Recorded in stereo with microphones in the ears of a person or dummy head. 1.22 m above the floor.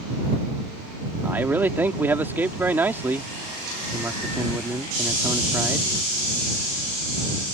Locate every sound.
1.2 s a man speaking: 10° right (ahead or behind)